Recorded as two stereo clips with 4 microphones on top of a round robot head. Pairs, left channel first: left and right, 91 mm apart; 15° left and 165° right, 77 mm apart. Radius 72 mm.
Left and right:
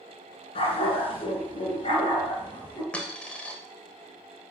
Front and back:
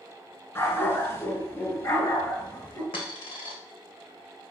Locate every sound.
0.6 s a dog barking: 70° left, 4 m; by 2.8 s 55° left, 5 m
2.9 s a dropped coin: 15° left, 2 m